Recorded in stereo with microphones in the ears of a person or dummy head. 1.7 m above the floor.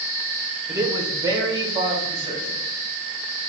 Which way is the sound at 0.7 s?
25° right (ahead or behind).